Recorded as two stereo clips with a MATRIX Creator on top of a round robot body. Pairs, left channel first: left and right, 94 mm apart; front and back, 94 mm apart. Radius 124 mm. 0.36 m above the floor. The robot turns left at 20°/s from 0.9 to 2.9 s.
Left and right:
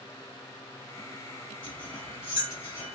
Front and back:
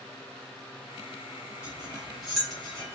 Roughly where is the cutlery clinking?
Left.